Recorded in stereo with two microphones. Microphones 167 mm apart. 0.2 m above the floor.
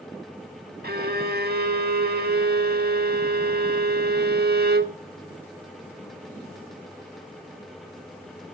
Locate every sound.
0.8 s a violin: 75° right (ahead or behind), 0.5 m